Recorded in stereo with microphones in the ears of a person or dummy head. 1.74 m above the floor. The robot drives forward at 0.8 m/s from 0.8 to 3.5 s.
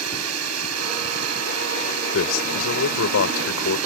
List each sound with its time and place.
0.0 s a drone: 85° right
2.1 s a man speaking: 75° left (ahead or behind); by 3.8 s 85° left